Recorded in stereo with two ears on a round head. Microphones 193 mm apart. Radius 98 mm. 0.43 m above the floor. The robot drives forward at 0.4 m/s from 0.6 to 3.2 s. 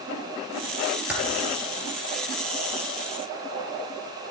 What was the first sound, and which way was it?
Typing on a keyboard, 5° right (ahead or behind).